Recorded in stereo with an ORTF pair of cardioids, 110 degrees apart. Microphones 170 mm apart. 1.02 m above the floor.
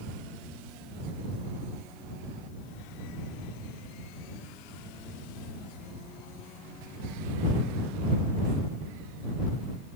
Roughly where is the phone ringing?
No phone ringing in this recording.